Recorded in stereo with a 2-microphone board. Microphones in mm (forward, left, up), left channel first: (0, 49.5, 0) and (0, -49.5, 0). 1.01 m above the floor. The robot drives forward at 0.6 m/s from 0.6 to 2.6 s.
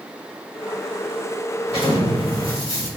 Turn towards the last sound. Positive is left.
turn(degrees=55)  # may be behind; listen again after turning